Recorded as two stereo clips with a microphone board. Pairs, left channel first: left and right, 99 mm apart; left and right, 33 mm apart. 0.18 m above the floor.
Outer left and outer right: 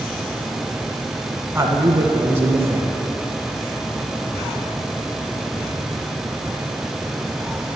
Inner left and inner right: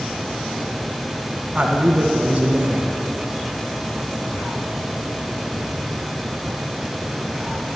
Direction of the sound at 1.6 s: 25° right (ahead or behind).